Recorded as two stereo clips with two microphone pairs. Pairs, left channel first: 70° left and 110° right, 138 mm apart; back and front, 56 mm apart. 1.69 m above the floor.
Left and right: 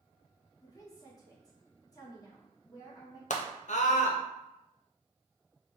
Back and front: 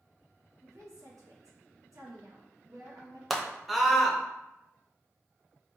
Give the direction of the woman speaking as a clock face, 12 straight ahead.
12 o'clock.